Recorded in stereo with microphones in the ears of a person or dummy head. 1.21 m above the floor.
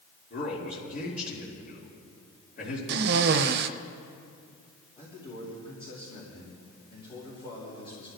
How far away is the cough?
About 0.8 m.